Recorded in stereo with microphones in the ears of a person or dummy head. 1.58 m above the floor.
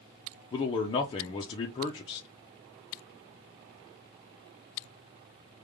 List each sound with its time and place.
0.5 s a man speaking: 30° left (ahead or behind), 0.6 m